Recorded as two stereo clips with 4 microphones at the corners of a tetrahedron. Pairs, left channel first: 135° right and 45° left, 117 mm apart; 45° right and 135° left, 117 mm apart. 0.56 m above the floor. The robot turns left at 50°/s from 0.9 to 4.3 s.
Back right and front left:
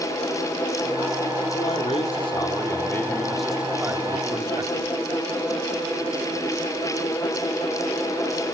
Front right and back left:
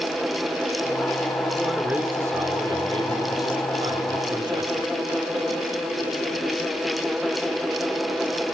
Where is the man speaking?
130° right, 1.6 m; by 4.9 s 90° left, 1.6 m.